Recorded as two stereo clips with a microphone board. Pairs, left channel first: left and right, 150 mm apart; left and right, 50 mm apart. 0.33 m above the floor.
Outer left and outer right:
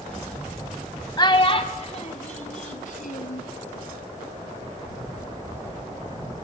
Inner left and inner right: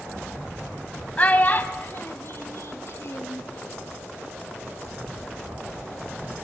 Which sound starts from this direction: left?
A child speaking, at 1.2 s.